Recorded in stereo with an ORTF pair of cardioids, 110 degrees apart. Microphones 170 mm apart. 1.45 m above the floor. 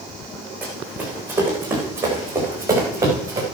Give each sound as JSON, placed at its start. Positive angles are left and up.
{"t": 0.6, "sound": "running footsteps", "azimuth_deg": -10, "distance_m": 6.0}